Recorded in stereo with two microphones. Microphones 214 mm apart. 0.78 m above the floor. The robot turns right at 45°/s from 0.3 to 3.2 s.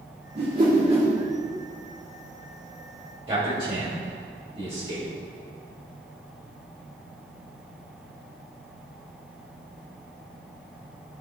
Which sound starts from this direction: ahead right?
A whoosh, at 0.3 s.